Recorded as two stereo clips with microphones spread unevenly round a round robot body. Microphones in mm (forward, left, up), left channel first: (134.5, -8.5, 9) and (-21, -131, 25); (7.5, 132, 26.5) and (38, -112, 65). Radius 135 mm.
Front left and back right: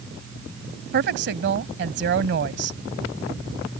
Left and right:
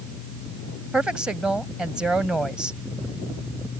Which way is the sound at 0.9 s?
175° right.